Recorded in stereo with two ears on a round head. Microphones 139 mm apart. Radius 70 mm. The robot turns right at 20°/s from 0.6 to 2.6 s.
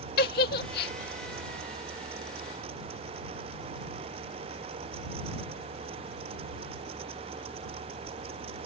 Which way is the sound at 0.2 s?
65° left (ahead or behind).